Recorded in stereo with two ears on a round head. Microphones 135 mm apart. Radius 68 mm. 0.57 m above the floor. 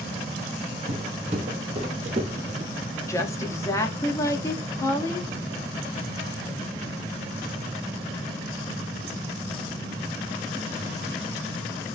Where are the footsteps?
45° right (ahead or behind), 1.6 m; by 2.7 s 50° right (ahead or behind), 0.8 m.